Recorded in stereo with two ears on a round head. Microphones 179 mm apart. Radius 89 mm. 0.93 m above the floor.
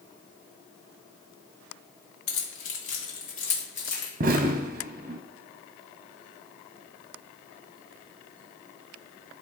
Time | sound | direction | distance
2.3 | keys jangling | 75° left (ahead or behind) | 1.3 m
4.2 | an explosion | 40° right (ahead or behind) | 0.6 m